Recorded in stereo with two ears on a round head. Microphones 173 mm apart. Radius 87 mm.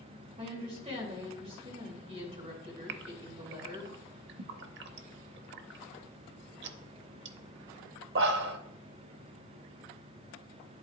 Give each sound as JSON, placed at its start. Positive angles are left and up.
{"t": 0.4, "sound": "a woman speaking", "side_deg": -35, "distance_m": 3.0}
{"t": 2.9, "sound": "a gasp", "side_deg": -60, "distance_m": 0.6}